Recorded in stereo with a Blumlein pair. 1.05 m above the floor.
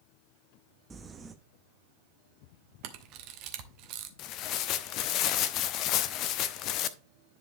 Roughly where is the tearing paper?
Ahead left.